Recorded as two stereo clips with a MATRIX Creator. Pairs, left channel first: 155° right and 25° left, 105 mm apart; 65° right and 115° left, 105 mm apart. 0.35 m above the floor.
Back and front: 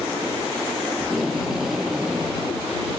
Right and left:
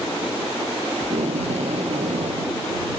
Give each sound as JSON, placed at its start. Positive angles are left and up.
{"t": 1.0, "sound": "tape being pulled", "azimuth_deg": 110}